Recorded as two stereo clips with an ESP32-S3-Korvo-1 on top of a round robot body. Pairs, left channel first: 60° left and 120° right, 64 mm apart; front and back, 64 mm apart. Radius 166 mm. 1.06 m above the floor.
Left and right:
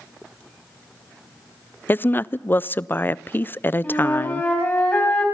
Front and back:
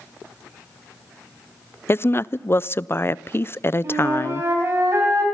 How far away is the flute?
About 3.5 m.